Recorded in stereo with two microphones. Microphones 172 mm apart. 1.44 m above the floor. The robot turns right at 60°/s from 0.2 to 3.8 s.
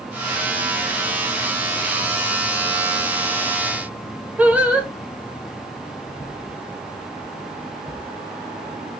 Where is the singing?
10° right (ahead or behind), 0.8 m.